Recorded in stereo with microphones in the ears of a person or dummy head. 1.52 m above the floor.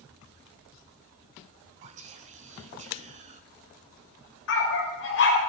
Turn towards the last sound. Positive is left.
turn(degrees=70)  # may be behind; listen again after turning